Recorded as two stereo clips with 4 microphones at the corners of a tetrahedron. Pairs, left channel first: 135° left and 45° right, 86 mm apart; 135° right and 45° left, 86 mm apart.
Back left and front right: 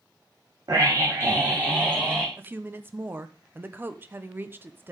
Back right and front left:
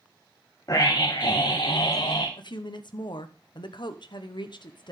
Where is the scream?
90° right, 1.3 m; by 2.3 s 110° right, 2 m.